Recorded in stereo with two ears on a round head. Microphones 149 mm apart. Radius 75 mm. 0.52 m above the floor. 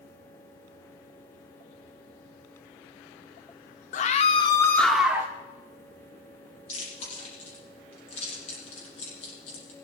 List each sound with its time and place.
3.9 s a scream: 45° left (ahead or behind), 0.9 m; by 5.3 s 15° right (ahead or behind), 1.0 m
6.7 s chewing: 45° left (ahead or behind), 6.5 m